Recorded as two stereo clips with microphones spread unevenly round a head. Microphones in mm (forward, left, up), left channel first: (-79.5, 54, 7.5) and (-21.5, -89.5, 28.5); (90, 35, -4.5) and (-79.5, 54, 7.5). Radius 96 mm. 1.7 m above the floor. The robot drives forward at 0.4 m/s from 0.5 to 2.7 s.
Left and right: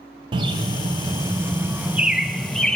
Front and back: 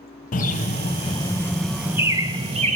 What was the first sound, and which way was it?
A bird, 25° right.